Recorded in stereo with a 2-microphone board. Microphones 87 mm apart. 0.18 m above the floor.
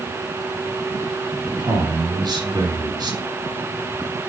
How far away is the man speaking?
About 2.5 m.